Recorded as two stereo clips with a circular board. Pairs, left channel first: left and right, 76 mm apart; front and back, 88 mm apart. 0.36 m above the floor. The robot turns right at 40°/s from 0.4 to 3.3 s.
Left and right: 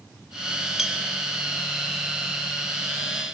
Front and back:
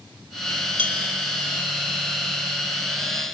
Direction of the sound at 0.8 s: 175° right.